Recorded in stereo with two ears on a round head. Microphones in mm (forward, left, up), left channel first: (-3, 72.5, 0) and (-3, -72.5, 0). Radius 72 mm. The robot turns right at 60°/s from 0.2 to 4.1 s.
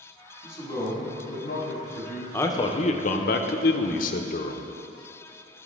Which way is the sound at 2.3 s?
15° left.